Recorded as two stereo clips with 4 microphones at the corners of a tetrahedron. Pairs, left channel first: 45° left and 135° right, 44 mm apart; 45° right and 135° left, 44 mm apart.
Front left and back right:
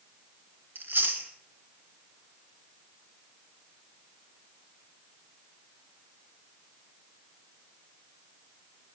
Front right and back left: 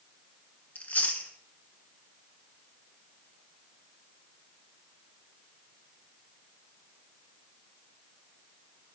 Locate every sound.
0.8 s chewing: 100° right, 1.6 m